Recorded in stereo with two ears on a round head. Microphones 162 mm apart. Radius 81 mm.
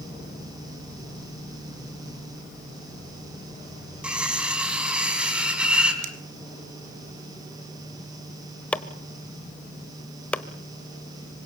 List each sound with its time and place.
4.0 s cutlery clinking: 5° right (ahead or behind), 3.5 m
6.0 s a finger snap: 85° right, 2.5 m
8.7 s chopping: 5° left (ahead or behind), 1.1 m